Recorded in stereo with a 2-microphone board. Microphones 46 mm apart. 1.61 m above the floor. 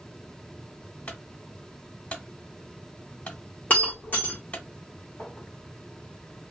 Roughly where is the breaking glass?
Left.